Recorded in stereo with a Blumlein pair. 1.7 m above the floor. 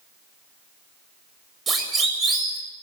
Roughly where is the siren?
Ahead.